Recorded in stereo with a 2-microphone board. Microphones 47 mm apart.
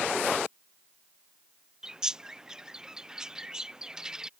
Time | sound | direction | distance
1.8 | a bird | 15° right (ahead or behind) | ?